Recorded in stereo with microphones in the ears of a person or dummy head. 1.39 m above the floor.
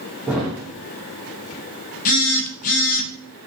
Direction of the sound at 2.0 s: 45° left (ahead or behind).